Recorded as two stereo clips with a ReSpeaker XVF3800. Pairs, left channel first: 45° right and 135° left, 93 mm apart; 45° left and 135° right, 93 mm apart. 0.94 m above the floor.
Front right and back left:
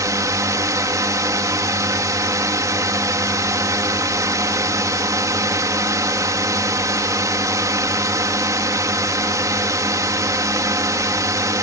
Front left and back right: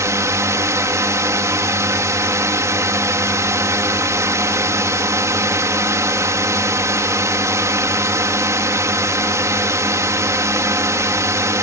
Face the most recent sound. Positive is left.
turn(degrees=180)